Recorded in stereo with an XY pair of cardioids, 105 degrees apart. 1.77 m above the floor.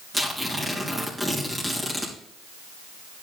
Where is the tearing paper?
10° right, 3 m.